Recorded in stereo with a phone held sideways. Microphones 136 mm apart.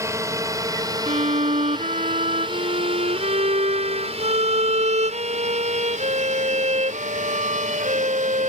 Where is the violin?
55° right (ahead or behind).